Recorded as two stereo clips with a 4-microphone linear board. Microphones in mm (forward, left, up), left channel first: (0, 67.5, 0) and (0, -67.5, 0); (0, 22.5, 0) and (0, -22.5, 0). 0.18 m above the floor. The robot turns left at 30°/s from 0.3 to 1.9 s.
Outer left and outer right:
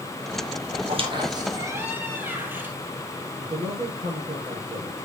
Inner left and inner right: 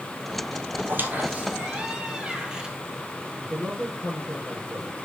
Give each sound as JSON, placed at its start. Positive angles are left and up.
{"t": 0.8, "sound": "a squeak", "azimuth_deg": -135, "distance_m": 1.5}
{"t": 3.4, "sound": "a man speaking", "side_deg": -50, "distance_m": 4.5}